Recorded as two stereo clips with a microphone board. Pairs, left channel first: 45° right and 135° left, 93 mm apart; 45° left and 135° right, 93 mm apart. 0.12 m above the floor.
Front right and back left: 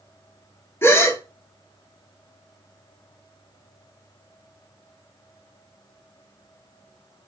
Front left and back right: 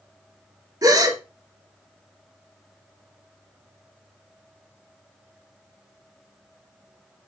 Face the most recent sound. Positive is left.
turn(degrees=-100)